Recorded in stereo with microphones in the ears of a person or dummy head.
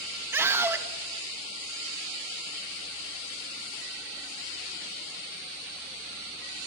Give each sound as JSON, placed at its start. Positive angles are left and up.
{"t": 0.3, "sound": "a scream", "side_deg": -15, "distance_m": 2.5}